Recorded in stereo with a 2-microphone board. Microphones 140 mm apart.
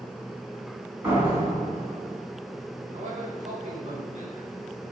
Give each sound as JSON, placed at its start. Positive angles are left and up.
{"t": 1.0, "sound": "a door slam", "side_deg": -15, "distance_m": 4.0}
{"t": 2.9, "sound": "a man speaking", "side_deg": -55, "distance_m": 2.5}